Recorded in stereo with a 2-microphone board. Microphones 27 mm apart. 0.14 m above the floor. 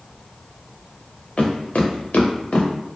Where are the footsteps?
55° left (ahead or behind), 0.9 m.